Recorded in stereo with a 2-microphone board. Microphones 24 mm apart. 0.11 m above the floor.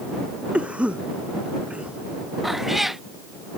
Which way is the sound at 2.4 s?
10° right (ahead or behind).